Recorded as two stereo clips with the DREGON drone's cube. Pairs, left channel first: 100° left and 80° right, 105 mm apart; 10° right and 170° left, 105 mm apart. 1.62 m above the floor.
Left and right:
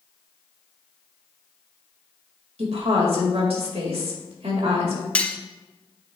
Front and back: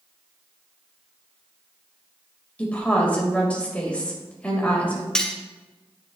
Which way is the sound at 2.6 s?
90° right.